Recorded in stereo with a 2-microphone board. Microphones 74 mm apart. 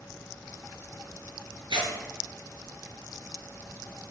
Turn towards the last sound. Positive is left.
turn(degrees=-75)  # may be behind; listen again after turning